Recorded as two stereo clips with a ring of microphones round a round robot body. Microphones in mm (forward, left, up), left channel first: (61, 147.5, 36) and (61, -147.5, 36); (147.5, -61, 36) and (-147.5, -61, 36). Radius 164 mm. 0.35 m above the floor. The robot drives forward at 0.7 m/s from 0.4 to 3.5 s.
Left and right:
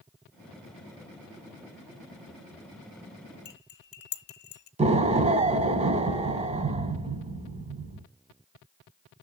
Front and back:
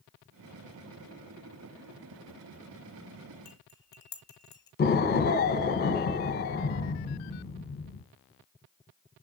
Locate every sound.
3.5 s cutlery clinking: 70° left, 0.9 m; by 4.7 s 75° left, 0.9 m
4.8 s an explosion: 35° right, 0.8 m